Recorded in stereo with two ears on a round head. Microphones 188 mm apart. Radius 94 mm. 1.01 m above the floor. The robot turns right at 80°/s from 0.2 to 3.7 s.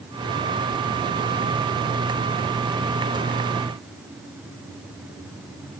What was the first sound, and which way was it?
Only background noise.